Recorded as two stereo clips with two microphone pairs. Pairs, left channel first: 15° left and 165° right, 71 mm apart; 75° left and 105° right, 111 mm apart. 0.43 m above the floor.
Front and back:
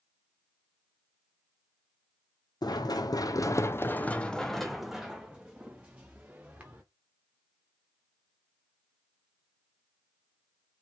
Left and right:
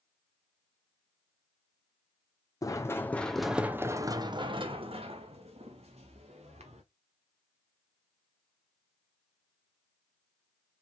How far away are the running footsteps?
About 1.2 m.